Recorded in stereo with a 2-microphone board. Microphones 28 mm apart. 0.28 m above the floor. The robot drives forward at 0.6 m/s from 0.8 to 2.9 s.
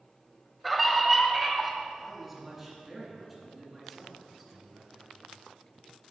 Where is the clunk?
I don't hear a clunk.